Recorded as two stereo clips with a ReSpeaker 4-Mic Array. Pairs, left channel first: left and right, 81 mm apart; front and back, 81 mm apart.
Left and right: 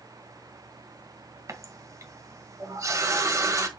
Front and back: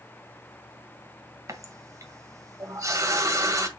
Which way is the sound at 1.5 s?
135° right.